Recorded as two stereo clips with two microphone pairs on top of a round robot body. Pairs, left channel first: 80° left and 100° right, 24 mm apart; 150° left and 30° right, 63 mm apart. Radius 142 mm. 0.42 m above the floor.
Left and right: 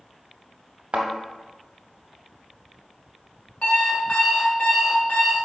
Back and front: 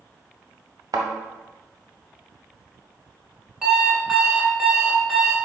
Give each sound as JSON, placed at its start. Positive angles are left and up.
{"t": 0.9, "sound": "a thud", "azimuth_deg": -70, "distance_m": 0.6}
{"t": 3.6, "sound": "an alarm clock", "azimuth_deg": 50, "distance_m": 1.7}